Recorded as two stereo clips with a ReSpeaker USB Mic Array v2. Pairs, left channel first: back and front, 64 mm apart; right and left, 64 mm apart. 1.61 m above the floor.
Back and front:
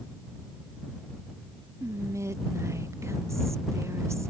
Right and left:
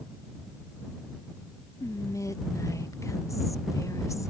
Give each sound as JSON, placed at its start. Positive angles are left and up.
{"t": 1.8, "sound": "whispering", "azimuth_deg": -50}